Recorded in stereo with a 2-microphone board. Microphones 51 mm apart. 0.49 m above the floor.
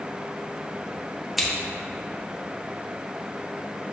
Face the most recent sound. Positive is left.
turn(degrees=0)  # may be behind; listen again after turning